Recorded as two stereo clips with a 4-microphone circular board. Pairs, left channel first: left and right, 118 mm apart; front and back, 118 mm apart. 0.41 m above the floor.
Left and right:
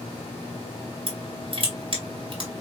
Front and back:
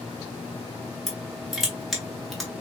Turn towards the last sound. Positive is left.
turn(degrees=-90)